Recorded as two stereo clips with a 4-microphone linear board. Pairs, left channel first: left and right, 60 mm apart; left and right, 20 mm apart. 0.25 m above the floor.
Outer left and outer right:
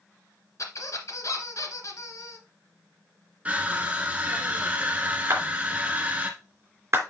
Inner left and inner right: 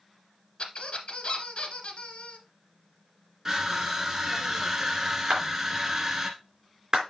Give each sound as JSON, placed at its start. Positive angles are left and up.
{"t": 0.6, "sound": "a squeak", "side_deg": 55, "distance_m": 1.5}
{"t": 3.5, "sound": "crushing", "side_deg": -20, "distance_m": 1.2}
{"t": 5.3, "sound": "a clap", "side_deg": -40, "distance_m": 3.5}